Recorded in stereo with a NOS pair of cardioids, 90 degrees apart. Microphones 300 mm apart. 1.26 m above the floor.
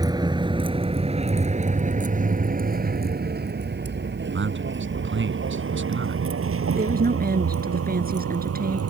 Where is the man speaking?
40° right.